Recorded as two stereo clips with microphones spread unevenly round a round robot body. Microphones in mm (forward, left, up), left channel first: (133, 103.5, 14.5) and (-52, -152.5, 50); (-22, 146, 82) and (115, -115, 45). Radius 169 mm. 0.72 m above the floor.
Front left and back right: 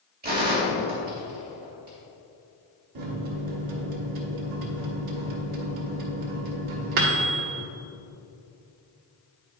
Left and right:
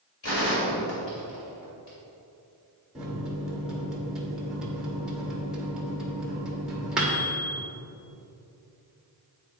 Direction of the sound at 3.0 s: 145° right.